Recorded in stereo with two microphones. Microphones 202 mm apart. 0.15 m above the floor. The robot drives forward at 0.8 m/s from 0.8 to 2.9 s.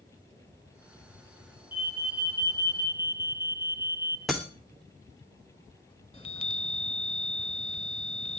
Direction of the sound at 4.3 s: Centre (ahead or behind).